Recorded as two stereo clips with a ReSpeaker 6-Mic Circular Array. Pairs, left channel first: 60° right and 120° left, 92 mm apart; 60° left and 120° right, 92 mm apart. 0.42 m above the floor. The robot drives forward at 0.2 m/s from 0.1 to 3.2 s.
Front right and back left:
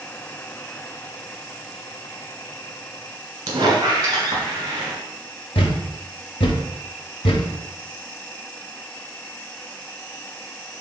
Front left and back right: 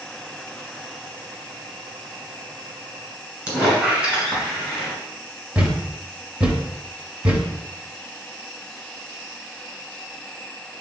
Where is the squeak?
165° left, 1.4 m.